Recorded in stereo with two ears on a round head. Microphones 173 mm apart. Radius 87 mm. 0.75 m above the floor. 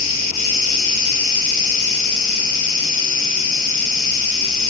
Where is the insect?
80° left, 1.5 m.